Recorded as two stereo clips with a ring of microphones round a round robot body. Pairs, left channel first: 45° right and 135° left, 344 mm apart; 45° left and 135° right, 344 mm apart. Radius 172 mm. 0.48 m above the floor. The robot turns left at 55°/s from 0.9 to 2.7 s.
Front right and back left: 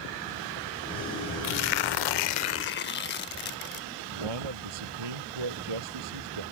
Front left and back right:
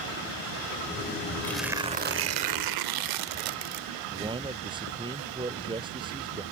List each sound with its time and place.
1.4 s tearing paper: 35° right; by 3.8 s 105° right
4.1 s a man speaking: 150° left